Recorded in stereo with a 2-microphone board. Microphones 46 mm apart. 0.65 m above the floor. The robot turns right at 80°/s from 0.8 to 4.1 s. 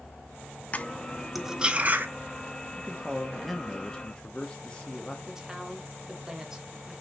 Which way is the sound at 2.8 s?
25° right (ahead or behind).